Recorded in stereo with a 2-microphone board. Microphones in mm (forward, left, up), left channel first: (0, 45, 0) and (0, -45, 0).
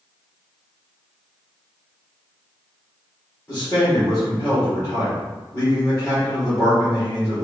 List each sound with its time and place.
3.5 s a man speaking: 25° left (ahead or behind), 1.7 m